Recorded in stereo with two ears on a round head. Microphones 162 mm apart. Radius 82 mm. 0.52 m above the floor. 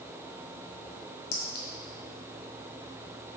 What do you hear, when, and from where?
1.3 s a clink: 75° left (ahead or behind), 1.9 m